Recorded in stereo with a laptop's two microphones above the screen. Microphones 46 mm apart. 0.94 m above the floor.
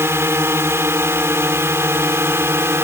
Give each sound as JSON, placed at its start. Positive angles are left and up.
{"t": 0.0, "sound": "a drone", "side_deg": -60}